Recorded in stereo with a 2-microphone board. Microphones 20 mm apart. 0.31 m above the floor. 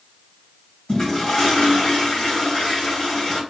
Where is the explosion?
No explosion in this recording.